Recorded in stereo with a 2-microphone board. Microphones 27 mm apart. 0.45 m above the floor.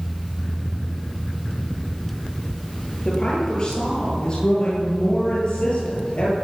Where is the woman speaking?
30° left (ahead or behind), 10 m; by 6.3 s 40° left (ahead or behind), 12 m.